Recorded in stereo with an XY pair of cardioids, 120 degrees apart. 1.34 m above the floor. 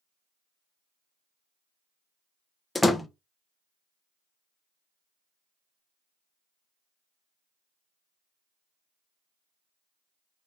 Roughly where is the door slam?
Ahead.